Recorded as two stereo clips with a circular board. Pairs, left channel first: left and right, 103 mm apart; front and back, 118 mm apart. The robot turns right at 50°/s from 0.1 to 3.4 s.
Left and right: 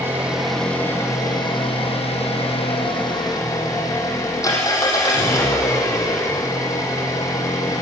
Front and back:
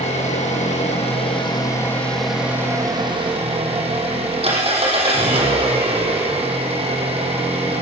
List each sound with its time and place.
0.0 s an engine running: 20° right, 5.5 m; by 7.8 s 145° left, 5.5 m